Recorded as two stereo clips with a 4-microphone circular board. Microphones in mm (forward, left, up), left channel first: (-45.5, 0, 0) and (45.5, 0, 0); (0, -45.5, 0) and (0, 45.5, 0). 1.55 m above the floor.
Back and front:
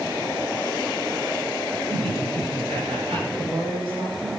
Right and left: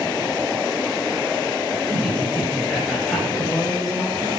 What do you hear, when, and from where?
1.9 s laughter: 5° left, 8.5 m; by 3.2 s straight ahead, 8.5 m
3.3 s a woman speaking: straight ahead, 7 m